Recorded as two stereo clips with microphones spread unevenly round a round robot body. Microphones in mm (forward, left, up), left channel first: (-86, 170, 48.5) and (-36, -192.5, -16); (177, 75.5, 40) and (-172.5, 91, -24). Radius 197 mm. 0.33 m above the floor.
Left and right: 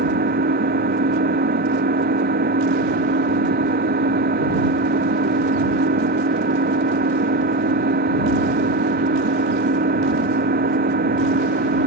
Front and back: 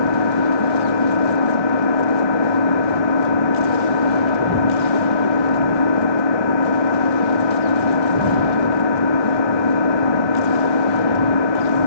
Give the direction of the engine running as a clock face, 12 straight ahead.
12 o'clock.